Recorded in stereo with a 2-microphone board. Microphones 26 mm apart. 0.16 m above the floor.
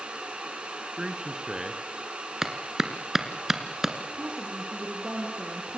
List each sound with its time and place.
1.0 s a man speaking: 25° right (ahead or behind), 2 m
2.4 s a clap: 15° right (ahead or behind), 2 m
4.1 s a woman speaking: 55° right (ahead or behind), 4 m